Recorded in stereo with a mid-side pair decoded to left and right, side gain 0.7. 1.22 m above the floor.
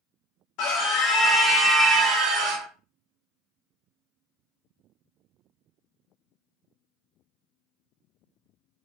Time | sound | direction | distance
0.6 | a scream | 55° left | 0.9 m